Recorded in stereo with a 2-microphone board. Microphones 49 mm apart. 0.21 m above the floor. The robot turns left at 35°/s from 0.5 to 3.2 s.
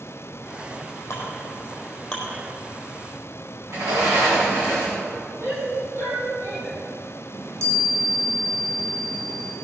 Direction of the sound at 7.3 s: 70° right (ahead or behind).